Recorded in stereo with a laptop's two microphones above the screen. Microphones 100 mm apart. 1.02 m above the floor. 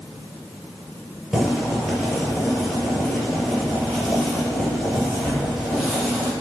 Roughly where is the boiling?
Centre.